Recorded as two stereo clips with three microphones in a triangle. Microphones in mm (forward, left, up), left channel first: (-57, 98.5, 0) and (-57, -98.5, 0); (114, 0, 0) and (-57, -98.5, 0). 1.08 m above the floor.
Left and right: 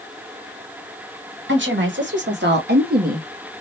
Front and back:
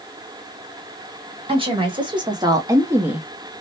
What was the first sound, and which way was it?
A woman speaking, 85° right.